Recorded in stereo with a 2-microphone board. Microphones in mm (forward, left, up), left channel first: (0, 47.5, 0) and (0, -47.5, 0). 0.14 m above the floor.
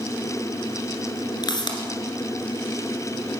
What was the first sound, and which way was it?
A pop, 50° left (ahead or behind).